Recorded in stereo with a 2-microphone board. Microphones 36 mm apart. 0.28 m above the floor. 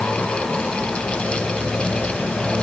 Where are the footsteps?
No footsteps in this recording.